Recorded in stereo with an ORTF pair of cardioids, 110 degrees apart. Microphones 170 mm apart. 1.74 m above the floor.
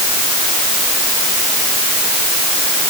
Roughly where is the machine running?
I don't hear a machine running.